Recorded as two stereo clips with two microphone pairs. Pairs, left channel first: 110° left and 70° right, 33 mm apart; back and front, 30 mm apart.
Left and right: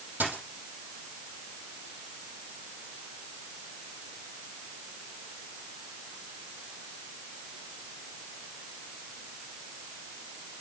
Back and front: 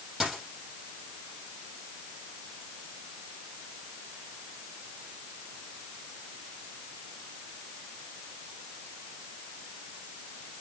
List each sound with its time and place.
0.2 s a dropped coin: 80° right, 6 m